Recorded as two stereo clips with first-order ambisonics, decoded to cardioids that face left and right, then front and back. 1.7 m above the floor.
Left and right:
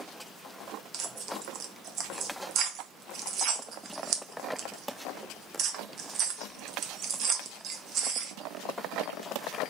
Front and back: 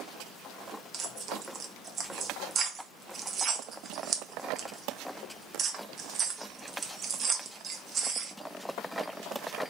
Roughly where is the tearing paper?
Behind right.